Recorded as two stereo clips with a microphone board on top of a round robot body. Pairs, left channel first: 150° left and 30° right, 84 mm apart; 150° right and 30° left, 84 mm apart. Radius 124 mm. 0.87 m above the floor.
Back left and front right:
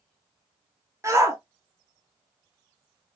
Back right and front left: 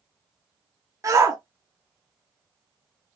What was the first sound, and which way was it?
A shout, 5° left.